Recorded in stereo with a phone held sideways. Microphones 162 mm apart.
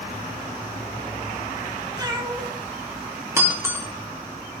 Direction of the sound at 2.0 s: 25° right (ahead or behind).